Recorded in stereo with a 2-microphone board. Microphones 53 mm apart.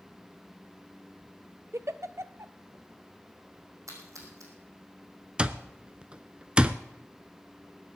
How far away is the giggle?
About 0.5 m.